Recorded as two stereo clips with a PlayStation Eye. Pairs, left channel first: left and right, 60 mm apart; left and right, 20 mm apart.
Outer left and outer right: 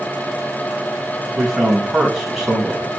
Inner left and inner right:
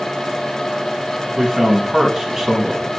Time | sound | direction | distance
1.4 | a man speaking | centre (ahead or behind) | 4 m